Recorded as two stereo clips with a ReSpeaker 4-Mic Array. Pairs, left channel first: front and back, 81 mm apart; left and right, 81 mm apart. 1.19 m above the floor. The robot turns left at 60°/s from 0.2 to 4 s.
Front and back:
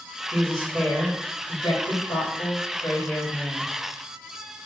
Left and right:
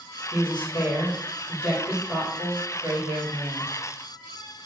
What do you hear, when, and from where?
0.3 s a woman speaking: 105° left, 2.5 m; by 3.7 s 100° right, 2.5 m